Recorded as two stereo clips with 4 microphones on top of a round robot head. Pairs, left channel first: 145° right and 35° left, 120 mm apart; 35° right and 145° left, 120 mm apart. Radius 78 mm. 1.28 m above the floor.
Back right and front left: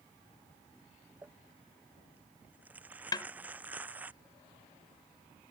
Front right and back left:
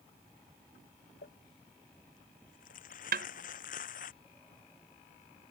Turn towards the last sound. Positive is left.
turn(degrees=155)